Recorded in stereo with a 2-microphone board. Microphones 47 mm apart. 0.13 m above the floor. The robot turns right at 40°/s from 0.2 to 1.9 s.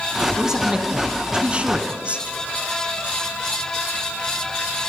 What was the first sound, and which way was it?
A man speaking, 10° right (ahead or behind).